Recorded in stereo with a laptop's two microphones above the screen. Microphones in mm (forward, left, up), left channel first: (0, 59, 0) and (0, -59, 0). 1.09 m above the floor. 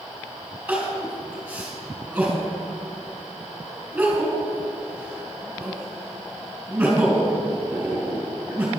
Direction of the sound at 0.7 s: 10° right (ahead or behind).